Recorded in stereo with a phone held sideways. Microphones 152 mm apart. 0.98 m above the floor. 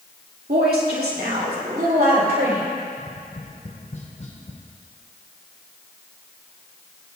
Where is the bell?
I don't hear a bell.